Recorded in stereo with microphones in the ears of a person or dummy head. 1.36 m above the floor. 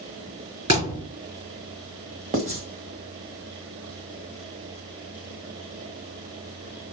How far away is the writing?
About 1.4 m.